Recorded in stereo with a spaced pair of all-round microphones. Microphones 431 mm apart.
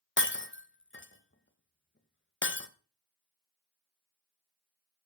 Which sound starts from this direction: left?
Breaking glass, at 0.2 s.